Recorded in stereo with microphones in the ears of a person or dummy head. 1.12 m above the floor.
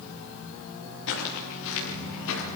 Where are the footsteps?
65° left (ahead or behind), 9 m; by 2.4 s 70° left (ahead or behind), 8 m.